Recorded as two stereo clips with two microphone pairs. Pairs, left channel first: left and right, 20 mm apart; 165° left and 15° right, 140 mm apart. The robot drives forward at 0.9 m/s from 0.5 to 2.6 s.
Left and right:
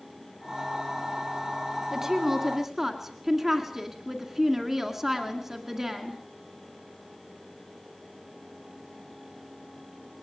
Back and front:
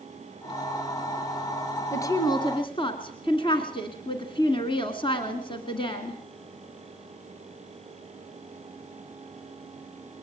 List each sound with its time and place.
1.9 s a woman speaking: 140° right, 1.5 m; by 6.2 s 155° right, 1.9 m